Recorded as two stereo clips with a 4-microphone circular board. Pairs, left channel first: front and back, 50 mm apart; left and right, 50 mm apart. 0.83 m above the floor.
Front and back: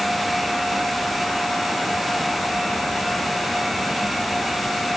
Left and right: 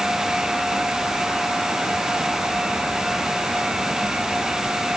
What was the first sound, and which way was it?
Only background noise.